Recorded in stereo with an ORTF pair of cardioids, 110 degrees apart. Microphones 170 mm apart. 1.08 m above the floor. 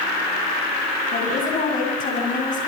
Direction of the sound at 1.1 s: 55° left.